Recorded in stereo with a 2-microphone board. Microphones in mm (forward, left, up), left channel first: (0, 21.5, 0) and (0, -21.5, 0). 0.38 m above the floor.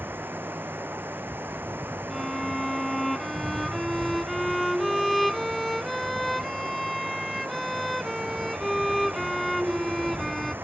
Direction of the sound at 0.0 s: 55° right (ahead or behind).